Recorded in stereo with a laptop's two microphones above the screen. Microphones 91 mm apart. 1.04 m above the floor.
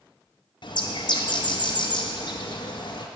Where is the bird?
55° left (ahead or behind), 0.6 m.